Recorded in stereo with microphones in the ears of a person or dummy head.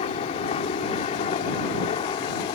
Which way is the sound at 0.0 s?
35° left (ahead or behind).